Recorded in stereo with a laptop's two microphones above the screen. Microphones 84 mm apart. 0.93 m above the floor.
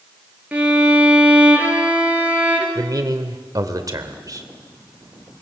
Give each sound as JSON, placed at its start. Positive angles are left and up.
{"t": 0.5, "sound": "a violin", "side_deg": -15, "distance_m": 5.5}
{"t": 2.8, "sound": "a man speaking", "side_deg": -40, "distance_m": 3.0}